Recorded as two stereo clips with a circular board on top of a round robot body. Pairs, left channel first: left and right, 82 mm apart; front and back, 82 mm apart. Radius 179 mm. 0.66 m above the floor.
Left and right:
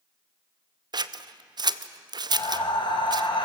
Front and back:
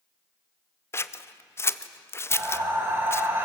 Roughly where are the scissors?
Ahead right.